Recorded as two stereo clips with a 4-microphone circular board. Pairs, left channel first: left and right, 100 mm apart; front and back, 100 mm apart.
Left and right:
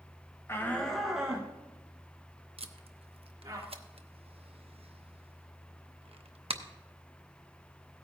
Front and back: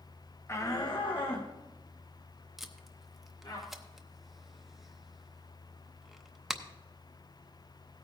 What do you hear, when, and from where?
0.5 s a shout: 45° left, 0.9 m; by 3.6 s 40° right, 3 m
2.6 s tape being pulled: 90° right, 0.7 m